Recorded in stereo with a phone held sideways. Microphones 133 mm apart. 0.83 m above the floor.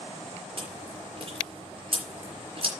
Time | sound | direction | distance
0.6 | chewing | 45° right (ahead or behind) | 4.5 m